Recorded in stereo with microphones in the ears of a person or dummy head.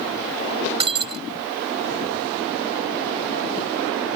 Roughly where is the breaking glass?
Right.